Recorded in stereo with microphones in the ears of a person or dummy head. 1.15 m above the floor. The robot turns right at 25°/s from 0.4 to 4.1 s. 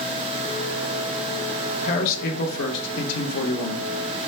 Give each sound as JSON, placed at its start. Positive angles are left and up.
{"t": 1.8, "sound": "a man speaking", "azimuth_deg": 45, "distance_m": 1.0}